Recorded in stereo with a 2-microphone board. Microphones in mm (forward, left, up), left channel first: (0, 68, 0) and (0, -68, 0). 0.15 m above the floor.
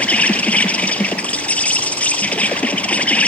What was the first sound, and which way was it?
An insect, 10° left (ahead or behind).